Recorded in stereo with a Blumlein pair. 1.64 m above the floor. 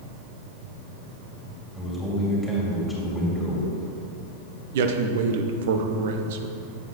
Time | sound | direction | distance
1.7 | a man speaking | straight ahead | 2.5 m
4.7 | a man speaking | 55° right | 0.8 m